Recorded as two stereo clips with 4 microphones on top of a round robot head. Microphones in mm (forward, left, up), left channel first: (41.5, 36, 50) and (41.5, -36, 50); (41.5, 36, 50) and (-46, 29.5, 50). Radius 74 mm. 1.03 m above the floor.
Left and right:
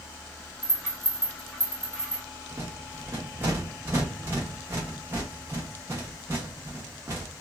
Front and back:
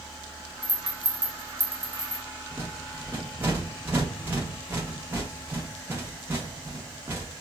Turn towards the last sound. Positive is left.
turn(degrees=-120)